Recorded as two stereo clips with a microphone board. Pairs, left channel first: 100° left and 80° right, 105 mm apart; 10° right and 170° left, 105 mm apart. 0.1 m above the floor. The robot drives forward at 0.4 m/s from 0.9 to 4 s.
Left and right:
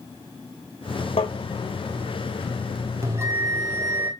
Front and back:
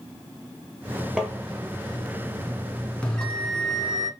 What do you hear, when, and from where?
1.2 s tapping: 85° left, 1.3 m; by 1.3 s 90° left, 1.3 m
3.0 s a bell: 80° right, 1.5 m; by 4.1 s 115° right, 1.5 m